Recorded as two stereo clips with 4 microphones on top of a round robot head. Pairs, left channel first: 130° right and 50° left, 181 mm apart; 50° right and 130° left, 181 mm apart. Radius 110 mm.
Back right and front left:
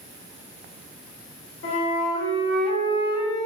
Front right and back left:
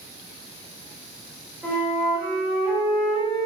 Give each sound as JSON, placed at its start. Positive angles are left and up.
{"t": 1.6, "sound": "a flute", "azimuth_deg": -145, "distance_m": 3.5}